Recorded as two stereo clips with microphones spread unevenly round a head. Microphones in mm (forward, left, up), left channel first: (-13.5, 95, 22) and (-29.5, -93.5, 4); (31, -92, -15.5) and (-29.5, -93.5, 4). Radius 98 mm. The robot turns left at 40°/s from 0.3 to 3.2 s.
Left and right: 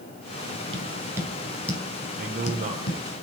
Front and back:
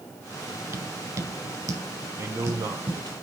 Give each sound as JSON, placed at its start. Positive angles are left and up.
{"t": 0.7, "sound": "tapping", "azimuth_deg": -155, "distance_m": 1.8}
{"t": 2.1, "sound": "a man speaking", "azimuth_deg": -130, "distance_m": 2.5}